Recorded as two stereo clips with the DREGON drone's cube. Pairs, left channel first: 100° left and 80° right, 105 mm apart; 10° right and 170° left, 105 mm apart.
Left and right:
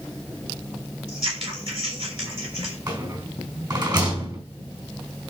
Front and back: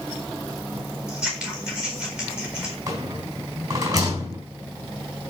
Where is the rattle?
130° right, 4 m.